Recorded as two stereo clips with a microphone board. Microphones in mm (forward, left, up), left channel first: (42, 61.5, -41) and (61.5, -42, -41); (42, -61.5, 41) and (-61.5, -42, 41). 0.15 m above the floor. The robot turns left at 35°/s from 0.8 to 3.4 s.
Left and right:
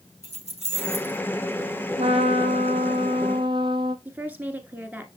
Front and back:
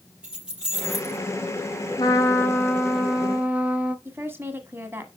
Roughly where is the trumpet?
Ahead right.